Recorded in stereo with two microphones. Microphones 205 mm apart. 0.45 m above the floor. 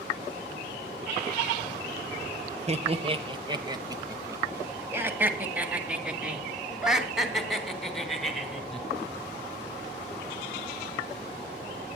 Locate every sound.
2.7 s laughter: 35° right (ahead or behind), 1.5 m; by 8.8 s 5° left (ahead or behind), 4 m